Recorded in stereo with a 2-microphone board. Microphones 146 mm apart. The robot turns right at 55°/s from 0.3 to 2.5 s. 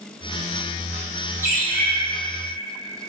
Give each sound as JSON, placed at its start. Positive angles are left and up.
{"t": 1.4, "sound": "a bird", "side_deg": -20, "distance_m": 1.4}